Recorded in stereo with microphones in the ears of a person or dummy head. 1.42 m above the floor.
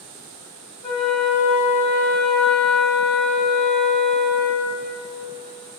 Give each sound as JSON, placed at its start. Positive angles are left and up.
{"t": 0.8, "sound": "a flute", "side_deg": 0, "distance_m": 2.0}